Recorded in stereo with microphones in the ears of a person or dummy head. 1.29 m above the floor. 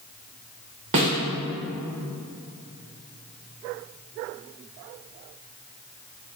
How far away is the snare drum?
About 0.9 m.